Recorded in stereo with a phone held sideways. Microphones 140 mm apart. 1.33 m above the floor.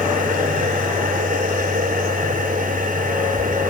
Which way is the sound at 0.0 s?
80° right.